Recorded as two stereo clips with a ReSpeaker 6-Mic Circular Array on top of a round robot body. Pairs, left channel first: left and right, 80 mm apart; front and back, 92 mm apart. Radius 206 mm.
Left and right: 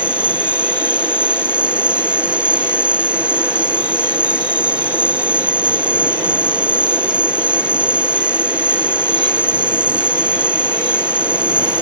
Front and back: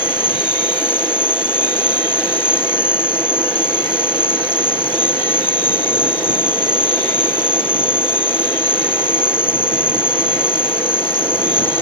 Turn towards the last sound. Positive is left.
turn(degrees=-15)